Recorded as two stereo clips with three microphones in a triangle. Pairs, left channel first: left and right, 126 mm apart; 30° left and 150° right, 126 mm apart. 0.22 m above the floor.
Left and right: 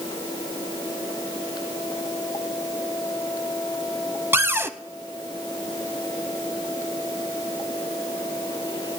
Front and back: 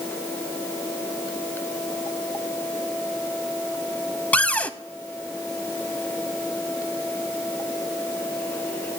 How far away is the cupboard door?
About 0.6 m.